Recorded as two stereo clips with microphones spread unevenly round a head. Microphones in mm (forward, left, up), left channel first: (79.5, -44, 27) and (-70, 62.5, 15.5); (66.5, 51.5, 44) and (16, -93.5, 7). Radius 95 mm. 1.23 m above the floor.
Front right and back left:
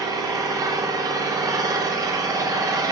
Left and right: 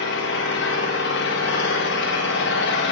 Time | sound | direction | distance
0.0 | an engine running | 75° left | 1.7 m